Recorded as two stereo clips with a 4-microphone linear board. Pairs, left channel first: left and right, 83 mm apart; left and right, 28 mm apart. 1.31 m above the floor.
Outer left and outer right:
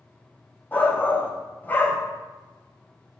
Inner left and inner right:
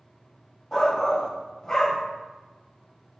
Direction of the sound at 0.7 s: 20° left (ahead or behind).